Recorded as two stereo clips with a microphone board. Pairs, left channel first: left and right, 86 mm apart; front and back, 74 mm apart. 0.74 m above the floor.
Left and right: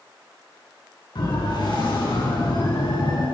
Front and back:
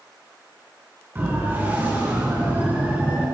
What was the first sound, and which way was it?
A siren, 120° left.